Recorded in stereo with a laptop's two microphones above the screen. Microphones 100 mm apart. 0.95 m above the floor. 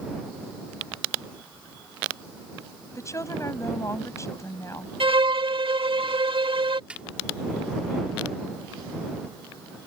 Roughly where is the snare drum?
Centre.